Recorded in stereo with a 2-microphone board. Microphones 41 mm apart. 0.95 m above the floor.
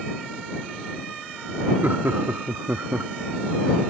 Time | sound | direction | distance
1.8 | laughter | 65° right (ahead or behind) | ?